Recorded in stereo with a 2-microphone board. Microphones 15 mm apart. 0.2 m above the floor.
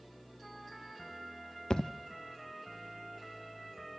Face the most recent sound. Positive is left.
turn(degrees=50)  # may be behind; listen again after turning